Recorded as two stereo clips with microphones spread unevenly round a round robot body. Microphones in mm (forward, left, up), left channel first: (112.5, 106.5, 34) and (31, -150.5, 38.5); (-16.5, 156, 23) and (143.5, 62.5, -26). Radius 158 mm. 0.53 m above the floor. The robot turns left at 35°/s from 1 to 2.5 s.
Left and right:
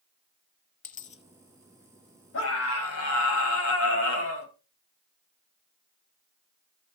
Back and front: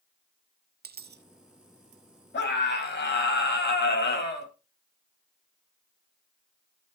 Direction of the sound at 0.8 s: 15° left.